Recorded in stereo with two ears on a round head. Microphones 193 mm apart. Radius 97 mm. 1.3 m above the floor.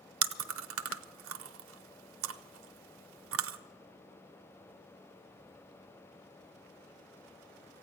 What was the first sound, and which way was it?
Chewing, 65° right (ahead or behind).